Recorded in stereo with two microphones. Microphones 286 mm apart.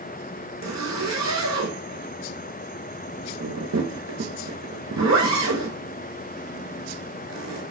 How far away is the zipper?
About 0.7 m.